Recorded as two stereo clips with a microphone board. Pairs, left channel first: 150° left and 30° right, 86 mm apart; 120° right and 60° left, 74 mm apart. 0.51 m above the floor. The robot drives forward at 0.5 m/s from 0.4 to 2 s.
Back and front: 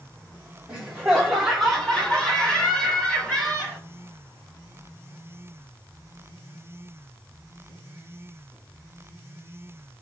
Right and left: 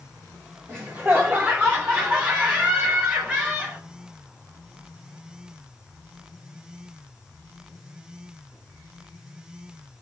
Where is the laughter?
40° left, 1.5 m; by 3.8 s 90° left, 1.4 m.